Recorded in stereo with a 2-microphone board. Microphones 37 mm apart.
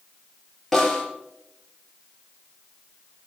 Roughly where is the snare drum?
Centre.